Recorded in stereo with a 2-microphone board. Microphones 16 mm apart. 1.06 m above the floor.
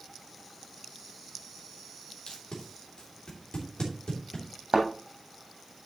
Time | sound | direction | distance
2.3 | tape being pulled | 70° left (ahead or behind) | 3 m
4.7 | a thud | 65° right (ahead or behind) | 3 m